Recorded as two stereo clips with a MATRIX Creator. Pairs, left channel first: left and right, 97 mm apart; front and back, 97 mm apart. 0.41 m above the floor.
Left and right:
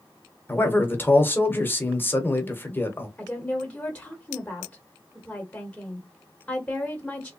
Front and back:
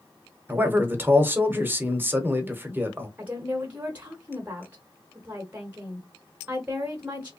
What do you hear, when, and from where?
0.5 s a man speaking: 135° left, 0.9 m
3.2 s a woman speaking: 150° left, 1.0 m